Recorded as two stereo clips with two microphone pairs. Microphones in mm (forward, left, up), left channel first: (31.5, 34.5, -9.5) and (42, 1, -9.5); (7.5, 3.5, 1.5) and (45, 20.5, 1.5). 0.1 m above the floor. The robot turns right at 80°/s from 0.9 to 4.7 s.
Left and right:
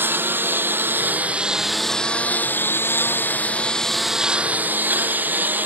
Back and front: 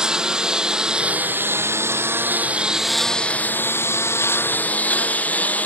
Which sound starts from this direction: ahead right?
A lawn mower, at 0.0 s.